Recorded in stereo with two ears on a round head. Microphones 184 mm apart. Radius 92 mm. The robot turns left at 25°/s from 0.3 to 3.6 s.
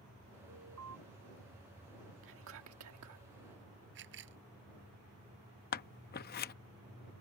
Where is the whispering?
60° right (ahead or behind); by 3.2 s 85° right.